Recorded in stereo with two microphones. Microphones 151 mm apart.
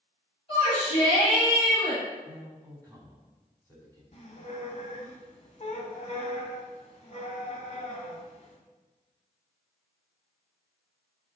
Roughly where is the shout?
Left.